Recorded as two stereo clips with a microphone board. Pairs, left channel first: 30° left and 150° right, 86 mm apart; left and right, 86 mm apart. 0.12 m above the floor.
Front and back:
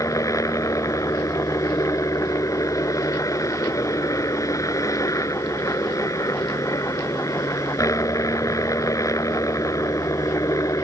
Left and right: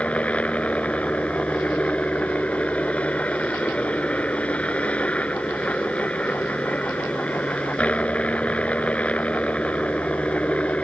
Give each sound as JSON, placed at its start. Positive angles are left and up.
{"t": 0.0, "sound": "a helicopter", "azimuth_deg": 25}